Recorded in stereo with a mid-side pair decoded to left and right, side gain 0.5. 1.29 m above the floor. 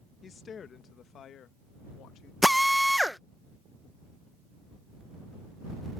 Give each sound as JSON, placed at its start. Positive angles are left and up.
{"t": 0.2, "sound": "a woman speaking", "azimuth_deg": 40}
{"t": 2.4, "sound": "a drill", "azimuth_deg": 5}